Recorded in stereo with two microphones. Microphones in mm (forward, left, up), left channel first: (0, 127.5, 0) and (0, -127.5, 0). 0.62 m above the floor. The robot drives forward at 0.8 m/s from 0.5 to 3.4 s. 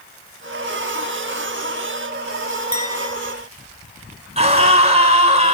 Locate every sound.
2.7 s a clink: 85° right, 2.5 m; by 3.1 s 75° right (ahead or behind), 2.5 m
4.4 s a scream: 25° right (ahead or behind), 6.5 m